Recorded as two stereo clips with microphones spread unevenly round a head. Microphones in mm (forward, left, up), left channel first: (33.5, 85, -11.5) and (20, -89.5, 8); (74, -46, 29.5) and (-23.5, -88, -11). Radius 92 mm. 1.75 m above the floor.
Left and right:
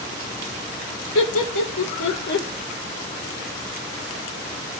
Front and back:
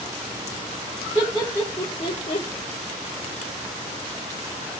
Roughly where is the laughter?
Left.